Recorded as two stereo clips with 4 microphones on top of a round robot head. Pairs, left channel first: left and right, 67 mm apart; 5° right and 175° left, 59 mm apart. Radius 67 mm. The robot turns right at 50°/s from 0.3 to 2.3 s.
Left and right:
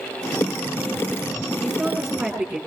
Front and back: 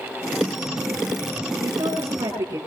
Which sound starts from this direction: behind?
A woman speaking, at 1.6 s.